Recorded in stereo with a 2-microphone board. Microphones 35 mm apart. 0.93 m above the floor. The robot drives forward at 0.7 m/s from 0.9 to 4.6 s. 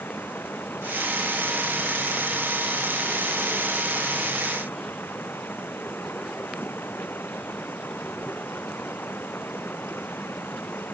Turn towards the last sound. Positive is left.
turn(degrees=80)